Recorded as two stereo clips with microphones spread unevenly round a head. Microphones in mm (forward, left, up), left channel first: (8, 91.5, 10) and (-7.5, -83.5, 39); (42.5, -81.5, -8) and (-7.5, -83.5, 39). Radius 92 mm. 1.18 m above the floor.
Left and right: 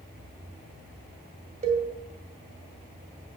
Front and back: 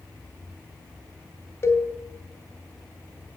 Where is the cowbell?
50° right, 2.5 m.